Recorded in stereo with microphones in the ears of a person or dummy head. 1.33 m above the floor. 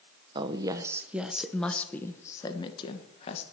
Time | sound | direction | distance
0.3 | a woman speaking | 25° right (ahead or behind) | 1.2 m